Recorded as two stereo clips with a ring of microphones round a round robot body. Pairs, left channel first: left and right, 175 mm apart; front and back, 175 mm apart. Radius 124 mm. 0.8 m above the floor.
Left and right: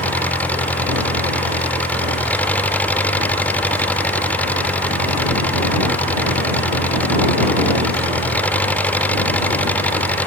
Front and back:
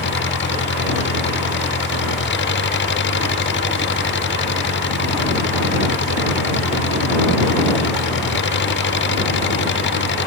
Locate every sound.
0.0 s an engine running: 10° left